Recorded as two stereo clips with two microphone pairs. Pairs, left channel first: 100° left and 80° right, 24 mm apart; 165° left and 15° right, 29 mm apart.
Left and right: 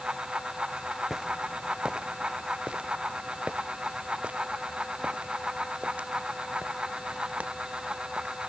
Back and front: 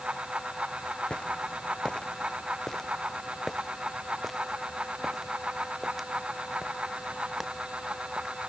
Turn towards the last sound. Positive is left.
turn(degrees=-85)